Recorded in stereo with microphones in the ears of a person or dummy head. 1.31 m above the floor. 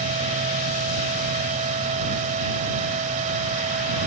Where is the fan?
40° right (ahead or behind).